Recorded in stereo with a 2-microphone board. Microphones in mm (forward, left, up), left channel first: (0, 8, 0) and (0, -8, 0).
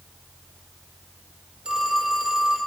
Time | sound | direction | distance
1.6 | a phone ringing | 50° right (ahead or behind) | 4.5 m